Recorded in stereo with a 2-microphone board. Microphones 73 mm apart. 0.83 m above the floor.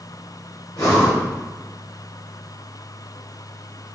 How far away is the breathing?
About 3 m.